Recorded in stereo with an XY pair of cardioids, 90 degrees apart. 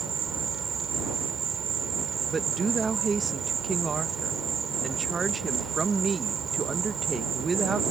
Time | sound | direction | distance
0.0 | an insect | 55° right | ?
2.3 | a woman speaking | 35° right | ?